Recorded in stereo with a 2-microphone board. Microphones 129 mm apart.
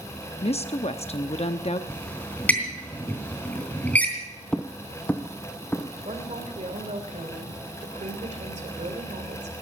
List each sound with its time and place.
0.4 s a woman speaking: 55° left (ahead or behind), 0.7 m
1.9 s a squeak: 15° left (ahead or behind), 3 m
4.5 s footsteps: 10° left (ahead or behind), 0.7 m; by 5.9 s 15° left (ahead or behind), 1.8 m
6.0 s a woman speaking: 70° right (ahead or behind), 2.5 m